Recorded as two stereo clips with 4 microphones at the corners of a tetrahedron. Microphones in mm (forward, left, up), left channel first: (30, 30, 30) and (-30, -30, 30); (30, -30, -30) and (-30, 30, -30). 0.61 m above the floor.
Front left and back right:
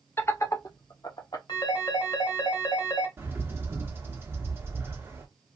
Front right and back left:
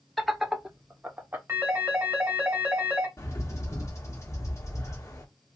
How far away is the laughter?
About 0.5 m.